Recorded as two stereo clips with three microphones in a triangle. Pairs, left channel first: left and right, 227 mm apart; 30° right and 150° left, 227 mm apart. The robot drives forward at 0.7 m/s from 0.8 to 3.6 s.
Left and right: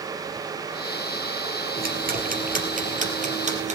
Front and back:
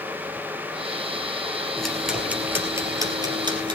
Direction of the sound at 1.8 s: 115° right.